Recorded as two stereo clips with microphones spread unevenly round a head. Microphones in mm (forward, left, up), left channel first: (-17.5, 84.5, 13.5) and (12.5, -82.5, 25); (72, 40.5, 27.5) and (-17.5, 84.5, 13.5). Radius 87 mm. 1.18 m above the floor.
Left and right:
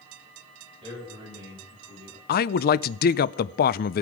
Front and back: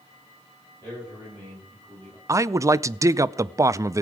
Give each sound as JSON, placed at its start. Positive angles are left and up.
{"t": 0.8, "sound": "a man speaking", "azimuth_deg": -140, "distance_m": 8.0}
{"t": 2.3, "sound": "a man speaking", "azimuth_deg": 105, "distance_m": 0.5}